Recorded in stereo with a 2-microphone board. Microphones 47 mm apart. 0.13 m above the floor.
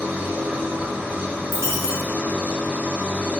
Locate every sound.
0.0 s an engine running: 40° right (ahead or behind), 1.0 m
1.5 s a dropped coin: 70° right (ahead or behind), 1.1 m